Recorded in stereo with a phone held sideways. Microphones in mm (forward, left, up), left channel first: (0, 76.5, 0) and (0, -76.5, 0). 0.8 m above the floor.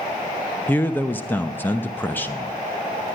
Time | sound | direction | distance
0.7 | a man speaking | 15° left (ahead or behind) | 0.7 m